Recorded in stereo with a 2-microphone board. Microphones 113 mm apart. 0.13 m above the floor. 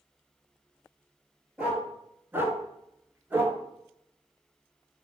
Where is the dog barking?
10° right (ahead or behind), 1.0 m; by 3.6 s 15° right (ahead or behind), 0.8 m.